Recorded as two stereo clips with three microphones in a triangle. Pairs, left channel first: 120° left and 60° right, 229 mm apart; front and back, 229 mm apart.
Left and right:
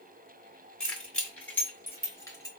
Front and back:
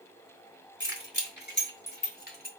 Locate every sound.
0.8 s keys jangling: 35° left, 2.5 m; by 2.5 s 45° left, 1.5 m